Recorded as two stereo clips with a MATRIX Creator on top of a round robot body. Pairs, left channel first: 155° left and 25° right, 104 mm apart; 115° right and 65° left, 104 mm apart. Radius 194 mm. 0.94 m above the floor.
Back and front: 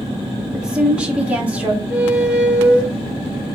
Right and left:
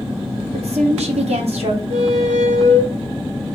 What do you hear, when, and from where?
0.5 s a woman speaking: 60° left, 1.3 m; by 1.8 s 55° left, 1.9 m
1.9 s a squeak: 60° left, 0.6 m